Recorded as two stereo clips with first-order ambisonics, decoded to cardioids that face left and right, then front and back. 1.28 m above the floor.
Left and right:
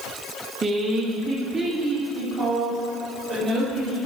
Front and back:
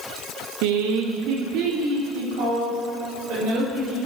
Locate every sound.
0.6 s a woman speaking: 165° right, 0.9 m; by 4.1 s 170° left, 6 m